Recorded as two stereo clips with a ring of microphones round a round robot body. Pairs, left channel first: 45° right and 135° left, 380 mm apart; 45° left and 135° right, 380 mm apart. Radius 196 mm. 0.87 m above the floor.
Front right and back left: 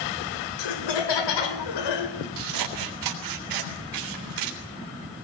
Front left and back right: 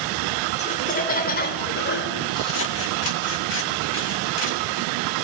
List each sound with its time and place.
0.6 s laughter: 30° right, 2.5 m; by 2.3 s 15° right, 3.5 m
2.4 s scissors: 100° left, 3.5 m